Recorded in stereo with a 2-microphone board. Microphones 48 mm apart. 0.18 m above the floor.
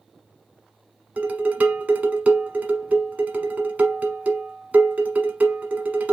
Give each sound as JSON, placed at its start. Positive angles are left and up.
{"t": 1.2, "sound": "dishes clattering", "side_deg": -30, "distance_m": 1.1}